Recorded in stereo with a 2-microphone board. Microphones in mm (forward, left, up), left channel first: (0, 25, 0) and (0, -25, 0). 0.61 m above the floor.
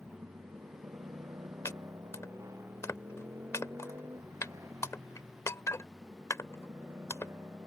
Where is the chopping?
80° left.